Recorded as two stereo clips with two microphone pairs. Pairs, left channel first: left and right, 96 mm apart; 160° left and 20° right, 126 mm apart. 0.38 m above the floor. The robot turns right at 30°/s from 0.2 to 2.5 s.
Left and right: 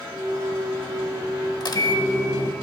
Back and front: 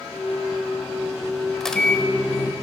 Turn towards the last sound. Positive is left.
turn(degrees=105)